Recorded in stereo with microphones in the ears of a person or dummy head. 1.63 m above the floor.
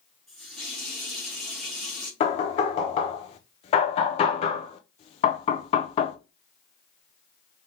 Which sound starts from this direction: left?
Knocking, at 2.2 s.